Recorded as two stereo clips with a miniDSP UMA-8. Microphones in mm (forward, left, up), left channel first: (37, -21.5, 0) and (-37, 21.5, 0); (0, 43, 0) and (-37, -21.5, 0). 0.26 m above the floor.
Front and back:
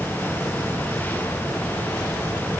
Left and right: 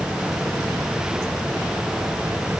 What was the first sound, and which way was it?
Only background noise.